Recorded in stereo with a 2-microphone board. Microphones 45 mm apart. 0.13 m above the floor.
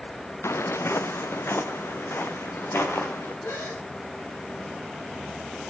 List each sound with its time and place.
0.4 s footsteps: 80° left, 1.1 m; by 3.3 s 60° left (ahead or behind), 5 m
3.4 s a gasp: 85° left, 7 m